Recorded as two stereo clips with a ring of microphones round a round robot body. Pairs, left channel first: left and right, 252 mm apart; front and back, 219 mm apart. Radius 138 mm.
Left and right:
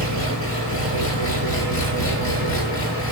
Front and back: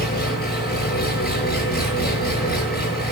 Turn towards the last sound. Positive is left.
turn(degrees=50)